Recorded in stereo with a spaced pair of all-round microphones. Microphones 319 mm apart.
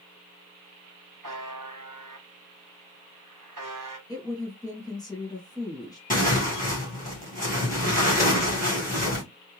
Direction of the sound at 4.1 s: 10° left (ahead or behind).